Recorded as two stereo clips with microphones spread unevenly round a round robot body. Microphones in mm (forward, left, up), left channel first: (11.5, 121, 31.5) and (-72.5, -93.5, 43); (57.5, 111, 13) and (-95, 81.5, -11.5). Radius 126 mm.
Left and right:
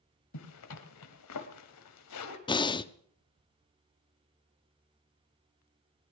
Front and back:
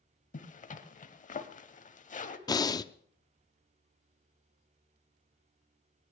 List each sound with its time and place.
0.3 s a zipper: 50° left, 1.3 m
2.5 s breathing: 60° left, 0.6 m